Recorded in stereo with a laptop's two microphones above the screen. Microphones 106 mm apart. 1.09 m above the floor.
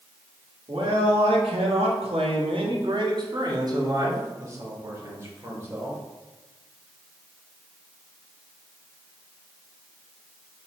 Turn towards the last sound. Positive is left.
turn(degrees=-25)  # may be behind; listen again after turning